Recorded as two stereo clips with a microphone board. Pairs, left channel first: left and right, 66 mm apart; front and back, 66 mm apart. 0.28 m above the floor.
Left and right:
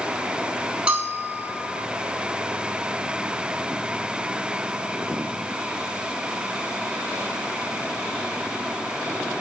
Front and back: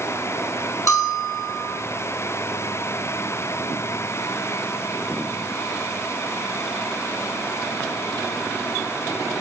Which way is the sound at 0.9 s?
20° right.